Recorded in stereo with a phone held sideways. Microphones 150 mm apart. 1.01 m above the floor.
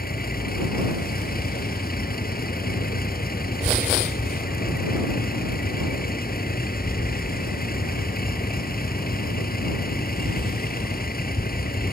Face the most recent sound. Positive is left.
turn(degrees=85)